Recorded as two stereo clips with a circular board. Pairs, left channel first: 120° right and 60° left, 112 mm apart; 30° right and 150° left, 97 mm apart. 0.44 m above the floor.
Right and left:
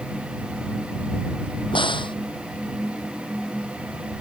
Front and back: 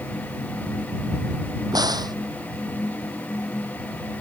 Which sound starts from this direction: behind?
A crack, at 1.7 s.